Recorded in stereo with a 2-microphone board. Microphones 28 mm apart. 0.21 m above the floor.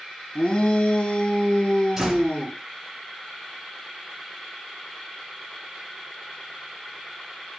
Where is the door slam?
15° right (ahead or behind), 3 m.